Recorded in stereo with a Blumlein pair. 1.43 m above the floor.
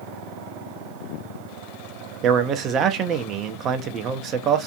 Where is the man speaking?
30° right, 0.5 m.